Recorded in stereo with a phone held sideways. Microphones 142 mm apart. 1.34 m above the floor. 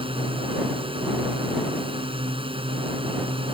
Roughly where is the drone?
Right.